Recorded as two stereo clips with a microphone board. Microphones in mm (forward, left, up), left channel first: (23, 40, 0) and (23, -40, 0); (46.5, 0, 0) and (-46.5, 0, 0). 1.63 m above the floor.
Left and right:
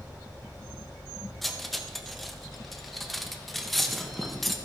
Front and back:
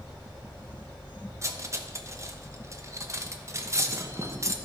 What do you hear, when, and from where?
1.4 s cutlery clinking: 175° left, 0.9 m